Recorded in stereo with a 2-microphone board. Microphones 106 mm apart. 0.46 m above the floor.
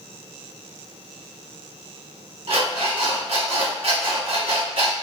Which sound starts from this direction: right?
An alarm clock, at 2.5 s.